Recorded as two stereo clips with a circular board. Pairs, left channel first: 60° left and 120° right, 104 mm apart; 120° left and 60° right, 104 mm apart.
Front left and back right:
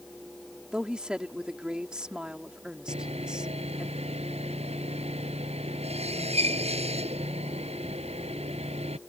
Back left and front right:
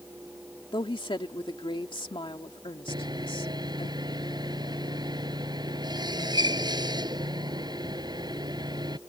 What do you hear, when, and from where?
0.7 s a woman speaking: 160° left
2.9 s sawing: 110° right